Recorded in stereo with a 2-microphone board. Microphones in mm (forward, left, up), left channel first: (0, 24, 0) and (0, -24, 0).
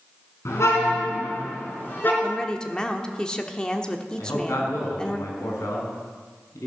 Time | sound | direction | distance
0.5 | a car horn | 70° left (ahead or behind) | 3.5 m
2.2 | a woman speaking | 15° left (ahead or behind) | 1.0 m
4.2 | a man speaking | 80° left | 5 m